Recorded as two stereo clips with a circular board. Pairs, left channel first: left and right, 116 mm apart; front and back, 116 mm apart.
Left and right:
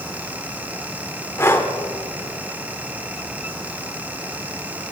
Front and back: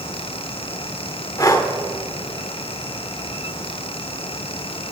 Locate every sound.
1.4 s breathing: 35° left, 1.2 m